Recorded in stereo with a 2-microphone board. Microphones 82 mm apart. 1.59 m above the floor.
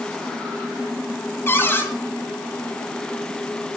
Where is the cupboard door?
30° left (ahead or behind), 2.5 m.